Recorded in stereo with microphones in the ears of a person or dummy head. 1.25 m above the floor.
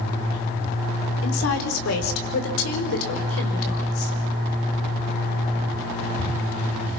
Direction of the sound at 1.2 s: 80° left.